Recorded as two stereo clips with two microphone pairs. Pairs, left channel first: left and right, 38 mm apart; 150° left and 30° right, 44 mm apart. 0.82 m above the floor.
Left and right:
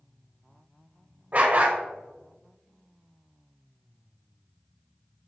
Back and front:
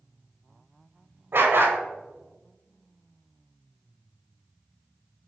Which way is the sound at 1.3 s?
50° right.